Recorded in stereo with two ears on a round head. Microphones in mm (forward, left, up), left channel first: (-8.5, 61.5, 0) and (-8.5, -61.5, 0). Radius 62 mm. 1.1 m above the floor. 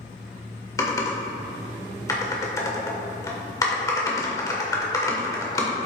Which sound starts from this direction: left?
Typing on a keyboard, at 0.8 s.